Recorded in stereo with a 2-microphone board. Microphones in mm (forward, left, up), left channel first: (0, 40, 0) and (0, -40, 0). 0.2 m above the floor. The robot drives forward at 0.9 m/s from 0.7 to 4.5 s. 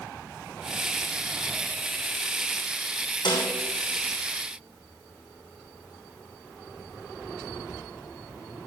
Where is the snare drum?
70° left (ahead or behind), 3.5 m; by 3.5 s 75° left (ahead or behind), 3 m.